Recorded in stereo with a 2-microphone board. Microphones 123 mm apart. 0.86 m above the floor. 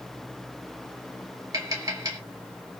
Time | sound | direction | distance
1.5 | tapping | 30° right (ahead or behind) | 3 m